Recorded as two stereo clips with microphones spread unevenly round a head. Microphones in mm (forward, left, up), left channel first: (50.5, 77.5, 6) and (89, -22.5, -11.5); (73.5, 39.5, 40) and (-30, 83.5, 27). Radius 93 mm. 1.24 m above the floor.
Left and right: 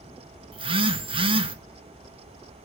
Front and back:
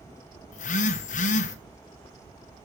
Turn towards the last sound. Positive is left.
turn(degrees=-35)